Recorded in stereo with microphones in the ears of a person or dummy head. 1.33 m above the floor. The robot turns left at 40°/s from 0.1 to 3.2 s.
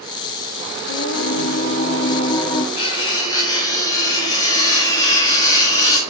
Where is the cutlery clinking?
40° left (ahead or behind), 5 m; by 6.0 s 25° left (ahead or behind), 5 m.